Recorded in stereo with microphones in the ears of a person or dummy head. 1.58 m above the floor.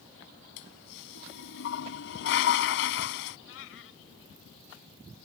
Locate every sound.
0.6 s a toilet flushing: 70° left (ahead or behind)
3.5 s a cat meowing: 80° left